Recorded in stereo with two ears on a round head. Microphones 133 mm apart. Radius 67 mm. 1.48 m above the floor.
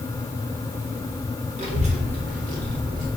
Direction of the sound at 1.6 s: 45° right (ahead or behind).